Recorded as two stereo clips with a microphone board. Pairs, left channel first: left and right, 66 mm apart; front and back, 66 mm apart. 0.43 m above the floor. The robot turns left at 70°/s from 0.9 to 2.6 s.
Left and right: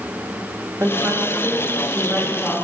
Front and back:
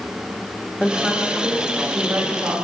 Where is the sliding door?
No sliding door in this recording.